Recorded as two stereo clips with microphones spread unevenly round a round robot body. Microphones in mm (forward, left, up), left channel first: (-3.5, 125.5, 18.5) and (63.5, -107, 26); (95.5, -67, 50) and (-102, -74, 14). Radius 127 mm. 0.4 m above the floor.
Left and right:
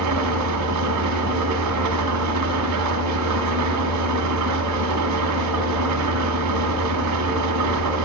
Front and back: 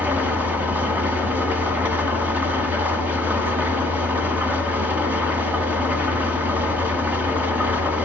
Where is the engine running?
100° right, 1.7 m.